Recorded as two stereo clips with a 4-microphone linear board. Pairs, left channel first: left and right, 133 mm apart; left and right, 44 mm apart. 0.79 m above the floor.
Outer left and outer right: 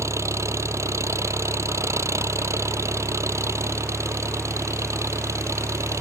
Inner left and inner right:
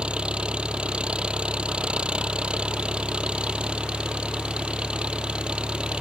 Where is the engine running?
20° right (ahead or behind).